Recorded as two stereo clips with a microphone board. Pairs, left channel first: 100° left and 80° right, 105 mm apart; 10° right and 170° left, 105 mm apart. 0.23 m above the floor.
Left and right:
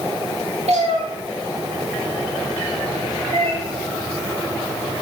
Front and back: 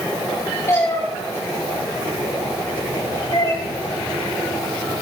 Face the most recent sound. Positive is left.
turn(degrees=-60)